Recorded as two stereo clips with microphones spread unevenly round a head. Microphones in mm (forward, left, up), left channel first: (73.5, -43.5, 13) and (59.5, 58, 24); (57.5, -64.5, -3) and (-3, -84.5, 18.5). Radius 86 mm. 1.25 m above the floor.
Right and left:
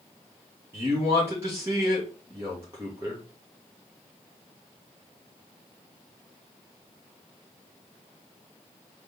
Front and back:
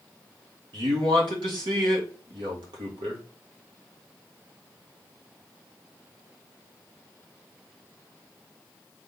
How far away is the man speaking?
About 1.3 m.